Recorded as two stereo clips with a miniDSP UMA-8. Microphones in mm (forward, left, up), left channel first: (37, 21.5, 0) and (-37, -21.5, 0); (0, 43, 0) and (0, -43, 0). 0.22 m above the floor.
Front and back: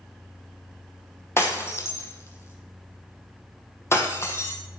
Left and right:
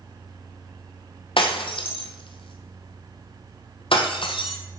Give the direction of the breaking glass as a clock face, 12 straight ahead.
9 o'clock.